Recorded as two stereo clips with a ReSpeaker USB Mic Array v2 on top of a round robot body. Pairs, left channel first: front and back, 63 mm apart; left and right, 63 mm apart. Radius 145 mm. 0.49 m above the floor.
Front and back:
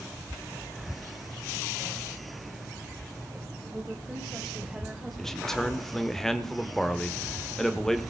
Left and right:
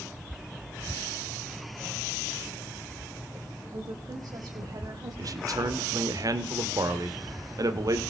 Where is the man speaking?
85° right, 2 m.